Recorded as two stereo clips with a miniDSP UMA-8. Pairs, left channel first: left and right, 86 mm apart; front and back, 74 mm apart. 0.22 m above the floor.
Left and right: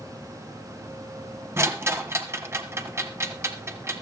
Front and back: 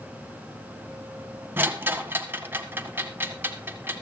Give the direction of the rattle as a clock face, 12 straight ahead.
4 o'clock.